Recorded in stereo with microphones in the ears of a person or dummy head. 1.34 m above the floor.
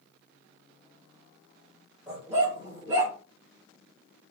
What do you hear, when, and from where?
2.1 s a dog barking: 15° right (ahead or behind), 1.8 m; by 3.1 s 25° right (ahead or behind), 2 m